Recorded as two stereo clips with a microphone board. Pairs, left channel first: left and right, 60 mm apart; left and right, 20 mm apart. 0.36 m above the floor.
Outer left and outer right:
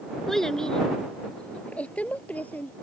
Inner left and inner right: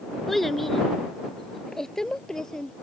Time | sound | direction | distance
0.3 | a child speaking | 5° left (ahead or behind) | ?